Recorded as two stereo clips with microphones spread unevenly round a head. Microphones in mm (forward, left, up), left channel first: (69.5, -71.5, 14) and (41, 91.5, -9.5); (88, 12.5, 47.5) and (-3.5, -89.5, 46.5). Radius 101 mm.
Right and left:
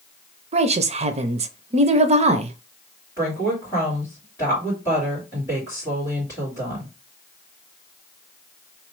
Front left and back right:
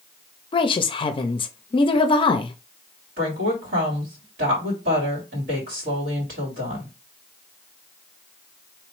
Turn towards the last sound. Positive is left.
turn(degrees=-160)